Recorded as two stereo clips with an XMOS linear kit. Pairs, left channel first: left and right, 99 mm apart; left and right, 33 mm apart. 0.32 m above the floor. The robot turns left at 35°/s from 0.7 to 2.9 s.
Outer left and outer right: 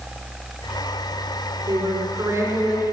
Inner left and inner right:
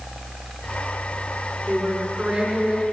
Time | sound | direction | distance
1.7 | a woman speaking | 125° right | 4 m